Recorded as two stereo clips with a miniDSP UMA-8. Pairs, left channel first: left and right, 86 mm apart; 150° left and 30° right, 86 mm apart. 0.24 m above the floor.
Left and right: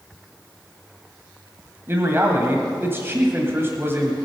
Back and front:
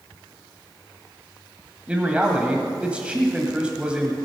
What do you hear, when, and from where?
1.9 s a man speaking: 90° right, 1.6 m